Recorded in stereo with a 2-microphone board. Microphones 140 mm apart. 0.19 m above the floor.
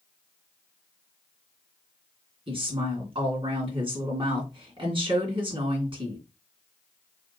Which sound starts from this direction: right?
A woman speaking, at 2.5 s.